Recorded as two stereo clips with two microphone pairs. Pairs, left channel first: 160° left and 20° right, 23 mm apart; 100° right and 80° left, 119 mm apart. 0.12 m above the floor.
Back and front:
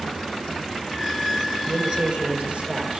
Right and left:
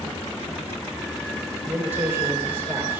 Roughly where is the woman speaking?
Ahead.